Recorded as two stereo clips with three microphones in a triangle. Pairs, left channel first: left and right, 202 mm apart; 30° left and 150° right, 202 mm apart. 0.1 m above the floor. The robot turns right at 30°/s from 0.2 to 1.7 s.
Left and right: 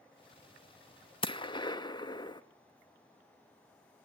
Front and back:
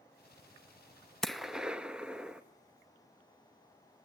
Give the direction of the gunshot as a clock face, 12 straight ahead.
8 o'clock.